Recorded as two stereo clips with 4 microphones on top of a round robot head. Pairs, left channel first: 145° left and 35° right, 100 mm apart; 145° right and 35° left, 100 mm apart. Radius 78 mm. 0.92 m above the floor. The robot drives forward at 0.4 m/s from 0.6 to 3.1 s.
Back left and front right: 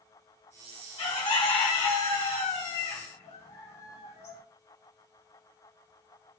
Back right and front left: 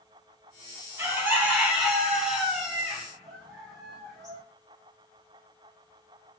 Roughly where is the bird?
Left.